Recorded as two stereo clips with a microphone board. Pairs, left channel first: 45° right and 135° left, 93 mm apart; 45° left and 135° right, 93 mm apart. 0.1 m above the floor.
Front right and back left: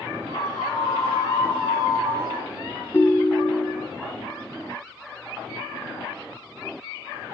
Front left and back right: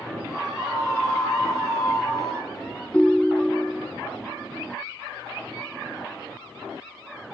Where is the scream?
45° right, 7.5 m; by 2.5 s 40° right, 6.5 m.